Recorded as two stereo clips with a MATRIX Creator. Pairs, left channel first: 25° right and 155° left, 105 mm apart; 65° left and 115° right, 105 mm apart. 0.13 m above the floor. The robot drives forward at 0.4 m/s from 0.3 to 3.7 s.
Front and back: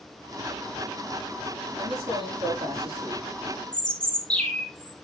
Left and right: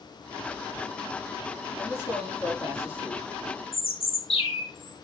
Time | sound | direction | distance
1.8 | a man speaking | 120° left | 5 m
3.7 | a bird | 60° left | 3 m